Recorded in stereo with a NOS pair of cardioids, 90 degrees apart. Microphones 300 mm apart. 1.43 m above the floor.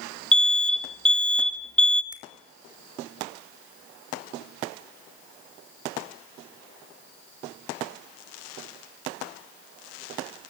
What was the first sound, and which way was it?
An alarm, 5° left.